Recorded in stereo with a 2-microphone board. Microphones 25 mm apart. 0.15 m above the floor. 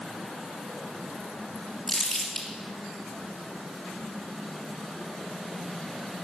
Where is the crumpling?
5° left (ahead or behind), 3 m.